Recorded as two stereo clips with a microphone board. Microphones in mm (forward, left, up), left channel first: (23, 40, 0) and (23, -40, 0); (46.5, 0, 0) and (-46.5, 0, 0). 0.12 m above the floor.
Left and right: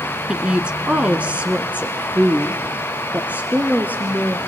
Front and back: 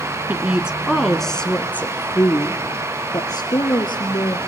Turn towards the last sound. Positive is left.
turn(degrees=-20)